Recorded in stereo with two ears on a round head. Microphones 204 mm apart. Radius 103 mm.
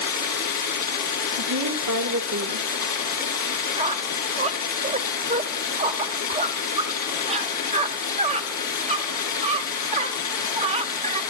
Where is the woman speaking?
85° right, 2.5 m.